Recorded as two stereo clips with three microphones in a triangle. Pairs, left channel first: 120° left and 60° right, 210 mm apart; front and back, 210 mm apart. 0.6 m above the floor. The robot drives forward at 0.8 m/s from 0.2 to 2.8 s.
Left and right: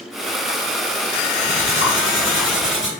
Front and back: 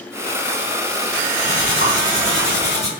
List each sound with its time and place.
1.4 s cutlery clinking: 140° left, 4 m; by 2.9 s 150° left, 5 m